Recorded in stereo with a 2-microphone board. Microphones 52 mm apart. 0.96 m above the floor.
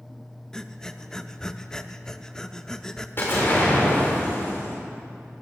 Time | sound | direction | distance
0.5 | breathing | 10° left (ahead or behind) | 0.5 m
3.2 | an explosion | 45° left (ahead or behind) | 4 m